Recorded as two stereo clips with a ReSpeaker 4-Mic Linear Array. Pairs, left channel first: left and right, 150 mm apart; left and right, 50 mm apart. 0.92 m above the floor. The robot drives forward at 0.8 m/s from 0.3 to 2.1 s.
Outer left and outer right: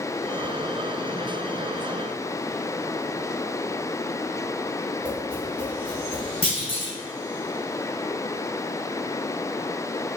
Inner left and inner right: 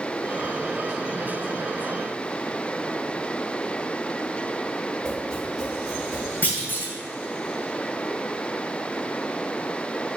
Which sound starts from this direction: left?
A clunk, at 6.4 s.